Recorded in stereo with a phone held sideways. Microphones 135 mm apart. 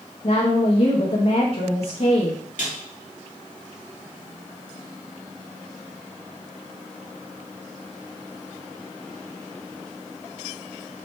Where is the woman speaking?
50° left (ahead or behind), 1.2 m.